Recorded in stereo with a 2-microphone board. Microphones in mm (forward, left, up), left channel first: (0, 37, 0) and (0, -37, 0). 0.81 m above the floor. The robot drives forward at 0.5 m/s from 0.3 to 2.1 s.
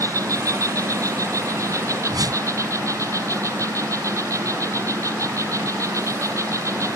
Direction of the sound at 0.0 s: 50° right (ahead or behind).